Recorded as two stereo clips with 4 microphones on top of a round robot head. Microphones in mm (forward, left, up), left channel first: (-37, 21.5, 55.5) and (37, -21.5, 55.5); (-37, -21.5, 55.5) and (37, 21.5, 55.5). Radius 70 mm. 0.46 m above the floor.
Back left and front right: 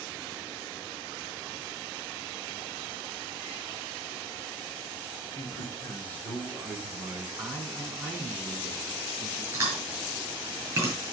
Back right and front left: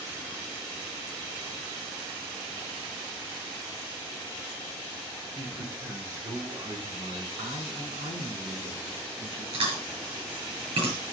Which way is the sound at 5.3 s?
105° left.